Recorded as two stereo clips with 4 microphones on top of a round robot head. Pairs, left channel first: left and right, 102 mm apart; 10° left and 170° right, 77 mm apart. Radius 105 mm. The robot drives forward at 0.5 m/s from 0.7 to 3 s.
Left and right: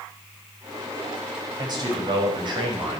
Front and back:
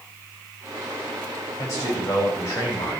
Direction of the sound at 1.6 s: 45° right.